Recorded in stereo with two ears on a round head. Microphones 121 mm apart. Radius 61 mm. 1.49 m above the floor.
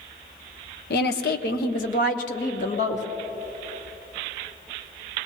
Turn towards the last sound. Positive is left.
turn(degrees=60)  # may be behind; listen again after turning